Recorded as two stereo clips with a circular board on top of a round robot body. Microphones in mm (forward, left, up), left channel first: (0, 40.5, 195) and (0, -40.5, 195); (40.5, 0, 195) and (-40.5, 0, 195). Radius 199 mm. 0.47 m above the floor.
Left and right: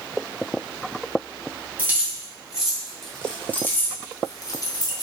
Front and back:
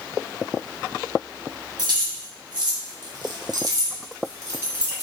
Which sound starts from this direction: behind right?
Keys jangling, at 1.8 s.